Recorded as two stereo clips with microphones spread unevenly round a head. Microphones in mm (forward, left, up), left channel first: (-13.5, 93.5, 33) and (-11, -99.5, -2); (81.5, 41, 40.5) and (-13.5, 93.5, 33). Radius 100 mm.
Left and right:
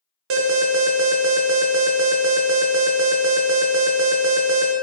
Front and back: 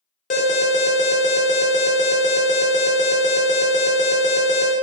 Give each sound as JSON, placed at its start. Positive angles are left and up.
{"t": 0.3, "sound": "an alarm", "azimuth_deg": -60, "distance_m": 0.5}